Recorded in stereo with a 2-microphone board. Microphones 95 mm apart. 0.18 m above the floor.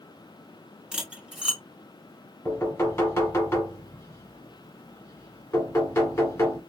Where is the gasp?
No gasp in this recording.